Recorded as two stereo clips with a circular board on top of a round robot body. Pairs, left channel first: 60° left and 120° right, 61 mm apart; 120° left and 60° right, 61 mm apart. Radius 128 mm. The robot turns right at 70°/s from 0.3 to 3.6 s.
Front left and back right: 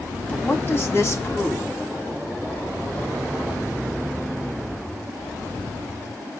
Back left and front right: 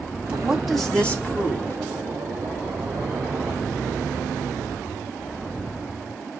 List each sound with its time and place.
0.3 s a woman speaking: straight ahead, 1.7 m; by 1.8 s 105° left, 1.7 m